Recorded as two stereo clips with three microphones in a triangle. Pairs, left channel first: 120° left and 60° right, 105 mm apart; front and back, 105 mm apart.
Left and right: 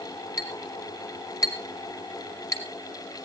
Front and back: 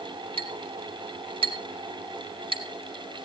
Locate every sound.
0.4 s a clink: straight behind, 2 m